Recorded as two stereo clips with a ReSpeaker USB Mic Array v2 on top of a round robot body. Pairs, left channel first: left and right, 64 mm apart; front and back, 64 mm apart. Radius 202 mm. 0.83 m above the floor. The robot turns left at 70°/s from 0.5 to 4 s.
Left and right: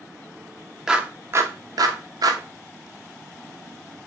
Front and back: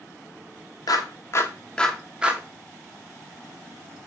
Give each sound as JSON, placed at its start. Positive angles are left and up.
{"t": 0.9, "sound": "a clap", "azimuth_deg": -10, "distance_m": 1.4}